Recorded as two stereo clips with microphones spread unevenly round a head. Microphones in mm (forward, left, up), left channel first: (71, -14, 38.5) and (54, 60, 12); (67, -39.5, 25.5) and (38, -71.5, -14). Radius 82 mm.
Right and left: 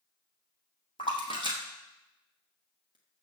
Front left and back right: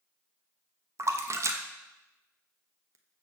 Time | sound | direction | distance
1.0 | a splash | 135° right | 1.0 m